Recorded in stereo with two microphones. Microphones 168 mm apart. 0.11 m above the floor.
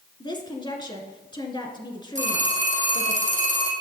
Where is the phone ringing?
45° right (ahead or behind), 2.5 m.